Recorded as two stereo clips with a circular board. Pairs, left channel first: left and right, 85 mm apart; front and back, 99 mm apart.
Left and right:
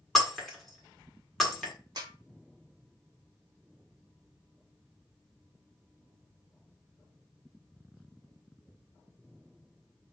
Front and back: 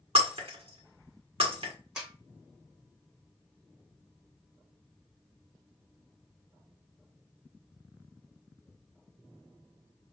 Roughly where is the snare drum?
Right.